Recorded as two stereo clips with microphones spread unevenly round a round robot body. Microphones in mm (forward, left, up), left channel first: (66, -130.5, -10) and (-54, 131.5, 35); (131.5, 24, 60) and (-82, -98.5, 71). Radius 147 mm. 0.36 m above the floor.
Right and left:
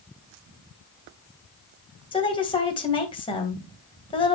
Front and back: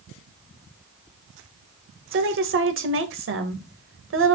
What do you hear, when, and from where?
2.1 s a woman speaking: 130° right, 2 m